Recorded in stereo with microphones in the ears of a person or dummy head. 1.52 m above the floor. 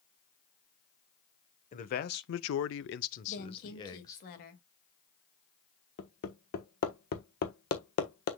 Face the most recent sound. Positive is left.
turn(degrees=55)  # may be behind; listen again after turning